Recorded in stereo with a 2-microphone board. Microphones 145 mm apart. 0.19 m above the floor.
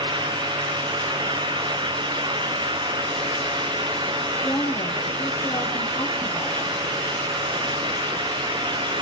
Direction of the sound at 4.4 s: 10° left (ahead or behind).